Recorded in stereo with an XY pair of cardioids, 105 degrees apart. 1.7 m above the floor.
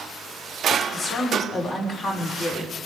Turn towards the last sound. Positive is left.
turn(degrees=50)